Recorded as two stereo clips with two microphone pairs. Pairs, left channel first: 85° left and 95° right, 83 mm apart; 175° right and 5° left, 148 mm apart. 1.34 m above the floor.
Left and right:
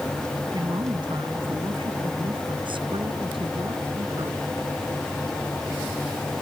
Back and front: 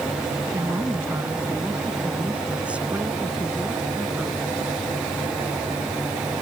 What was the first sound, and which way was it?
A woman speaking, 70° right.